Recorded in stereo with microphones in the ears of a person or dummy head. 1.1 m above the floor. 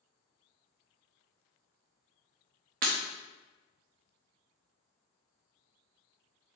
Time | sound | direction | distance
2.8 | breaking glass | 45° right (ahead or behind) | 0.6 m